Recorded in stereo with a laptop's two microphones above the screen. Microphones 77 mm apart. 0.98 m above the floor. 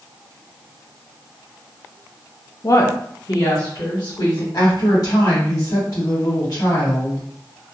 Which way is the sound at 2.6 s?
40° left (ahead or behind).